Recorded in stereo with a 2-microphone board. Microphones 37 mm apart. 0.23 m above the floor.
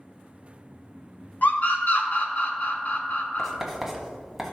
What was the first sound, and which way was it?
A scream, 55° left (ahead or behind).